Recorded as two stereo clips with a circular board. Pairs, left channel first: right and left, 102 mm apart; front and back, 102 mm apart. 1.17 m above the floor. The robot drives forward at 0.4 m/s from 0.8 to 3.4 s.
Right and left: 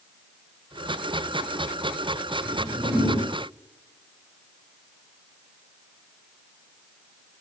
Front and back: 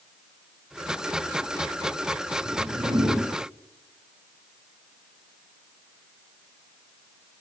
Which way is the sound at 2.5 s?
155° left.